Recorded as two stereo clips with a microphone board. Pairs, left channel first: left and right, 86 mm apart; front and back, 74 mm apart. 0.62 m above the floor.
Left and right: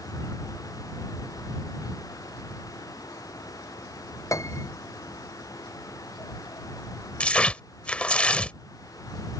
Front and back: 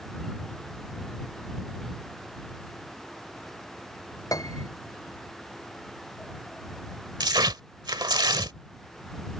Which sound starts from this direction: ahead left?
A piano, at 4.3 s.